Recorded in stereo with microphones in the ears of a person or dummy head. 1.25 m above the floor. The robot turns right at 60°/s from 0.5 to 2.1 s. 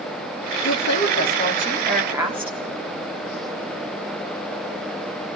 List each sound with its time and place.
0.6 s a woman speaking: 105° left, 3.5 m; by 2.6 s 170° right, 3.5 m